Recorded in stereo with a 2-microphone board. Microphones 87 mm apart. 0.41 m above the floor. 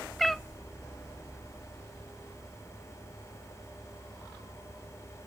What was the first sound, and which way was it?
A cat meowing, centre (ahead or behind).